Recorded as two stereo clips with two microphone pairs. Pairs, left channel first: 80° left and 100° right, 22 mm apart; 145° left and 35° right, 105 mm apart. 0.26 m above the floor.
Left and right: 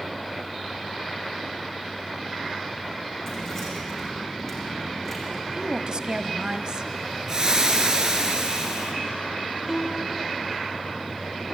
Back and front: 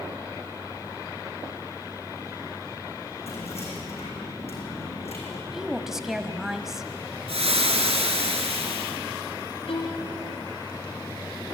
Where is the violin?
170° left, 5 m.